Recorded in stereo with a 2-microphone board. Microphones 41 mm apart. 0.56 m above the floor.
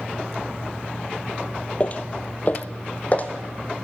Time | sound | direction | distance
1.8 | footsteps | 30° left (ahead or behind) | 0.6 m